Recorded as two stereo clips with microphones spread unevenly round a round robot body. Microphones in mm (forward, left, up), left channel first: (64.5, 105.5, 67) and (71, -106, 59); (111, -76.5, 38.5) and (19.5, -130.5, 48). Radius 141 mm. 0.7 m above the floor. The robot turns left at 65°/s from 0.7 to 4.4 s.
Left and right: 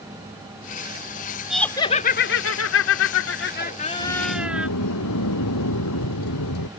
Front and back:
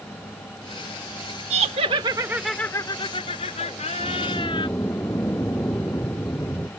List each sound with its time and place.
1.5 s laughter: 175° right; by 4.7 s 5° right
4.0 s a sliding door: 135° left; by 6.7 s 110° left